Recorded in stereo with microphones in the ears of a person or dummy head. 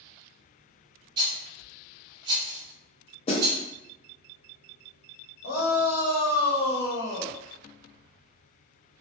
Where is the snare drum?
30° left (ahead or behind), 0.6 m.